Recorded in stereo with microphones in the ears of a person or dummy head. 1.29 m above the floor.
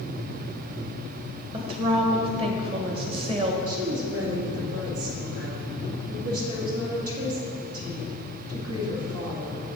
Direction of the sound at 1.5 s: 35° right (ahead or behind).